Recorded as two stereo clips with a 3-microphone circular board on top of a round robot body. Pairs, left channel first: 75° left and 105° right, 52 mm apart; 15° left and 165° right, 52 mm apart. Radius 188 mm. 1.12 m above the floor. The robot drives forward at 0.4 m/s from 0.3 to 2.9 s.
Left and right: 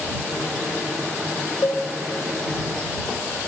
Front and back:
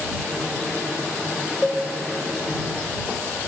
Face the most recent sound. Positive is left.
turn(degrees=140)